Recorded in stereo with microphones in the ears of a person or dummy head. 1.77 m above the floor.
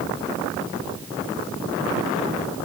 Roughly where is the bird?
No bird in this recording.